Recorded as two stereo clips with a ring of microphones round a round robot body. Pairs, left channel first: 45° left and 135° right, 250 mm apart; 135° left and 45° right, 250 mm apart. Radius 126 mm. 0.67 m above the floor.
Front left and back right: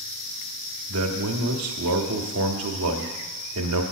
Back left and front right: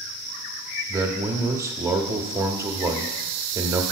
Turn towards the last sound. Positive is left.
turn(degrees=-125)